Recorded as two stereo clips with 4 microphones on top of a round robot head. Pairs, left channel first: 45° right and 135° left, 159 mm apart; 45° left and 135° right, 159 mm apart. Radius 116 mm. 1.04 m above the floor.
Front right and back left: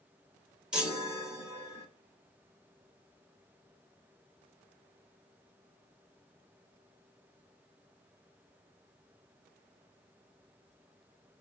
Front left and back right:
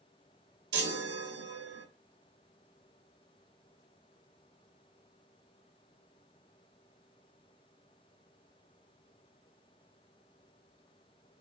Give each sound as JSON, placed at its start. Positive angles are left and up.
{"t": 0.7, "sound": "a chime", "azimuth_deg": -140, "distance_m": 0.8}